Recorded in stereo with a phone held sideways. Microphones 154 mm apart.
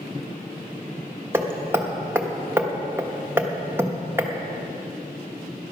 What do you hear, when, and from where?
1.3 s hammering: 15° right (ahead or behind), 1.1 m